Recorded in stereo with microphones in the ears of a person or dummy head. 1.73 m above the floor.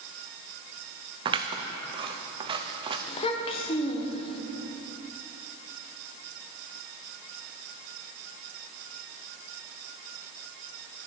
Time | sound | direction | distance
1.2 | scissors | 25° right (ahead or behind) | 0.6 m
3.1 | a child speaking | 35° left (ahead or behind) | 1.0 m